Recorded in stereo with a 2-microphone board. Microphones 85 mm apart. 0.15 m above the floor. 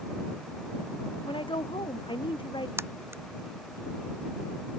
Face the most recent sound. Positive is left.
turn(degrees=-30)  # may be behind; listen again after turning